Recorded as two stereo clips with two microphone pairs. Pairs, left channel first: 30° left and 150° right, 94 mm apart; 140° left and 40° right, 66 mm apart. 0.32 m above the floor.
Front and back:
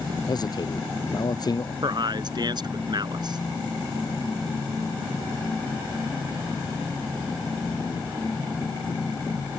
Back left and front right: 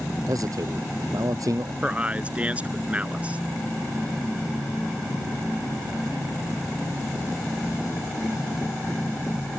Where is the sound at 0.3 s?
15° right.